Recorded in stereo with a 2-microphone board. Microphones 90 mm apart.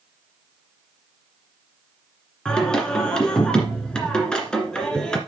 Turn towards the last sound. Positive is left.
turn(degrees=10)  # may be behind; listen again after turning